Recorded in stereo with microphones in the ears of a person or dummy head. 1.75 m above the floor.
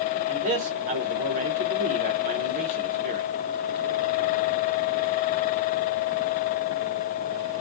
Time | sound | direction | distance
0.3 | a man speaking | 40° right (ahead or behind) | 0.8 m